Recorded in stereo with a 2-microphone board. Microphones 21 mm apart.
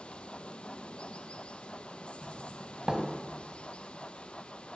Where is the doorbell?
30° right (ahead or behind), 3 m.